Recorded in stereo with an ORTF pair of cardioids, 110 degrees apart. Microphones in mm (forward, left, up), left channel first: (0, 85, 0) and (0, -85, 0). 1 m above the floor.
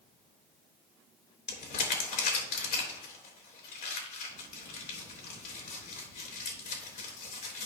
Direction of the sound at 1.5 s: 60° left.